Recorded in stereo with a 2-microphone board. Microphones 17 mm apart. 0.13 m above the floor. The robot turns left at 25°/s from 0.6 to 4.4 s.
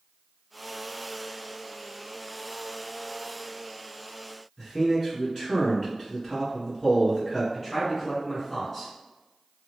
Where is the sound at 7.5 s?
20° left (ahead or behind), 2.0 m.